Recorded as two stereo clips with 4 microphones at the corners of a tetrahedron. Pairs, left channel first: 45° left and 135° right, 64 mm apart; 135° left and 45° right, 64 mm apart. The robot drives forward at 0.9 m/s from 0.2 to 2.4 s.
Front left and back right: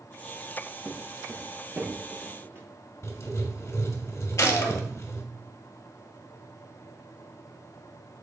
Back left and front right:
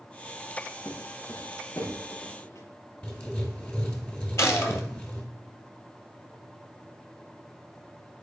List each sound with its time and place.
0.8 s footsteps: 145° left, 2 m; by 2.7 s straight behind, 3.5 m
3.0 s writing: 75° left, 2.5 m
4.4 s a gunshot: 90° left, 1.7 m